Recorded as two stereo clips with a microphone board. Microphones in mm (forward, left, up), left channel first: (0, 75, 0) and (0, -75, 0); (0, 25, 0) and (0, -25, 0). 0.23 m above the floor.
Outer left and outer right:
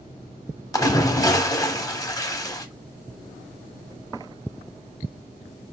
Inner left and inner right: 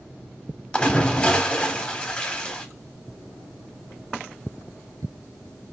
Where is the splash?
25° left (ahead or behind), 0.7 m.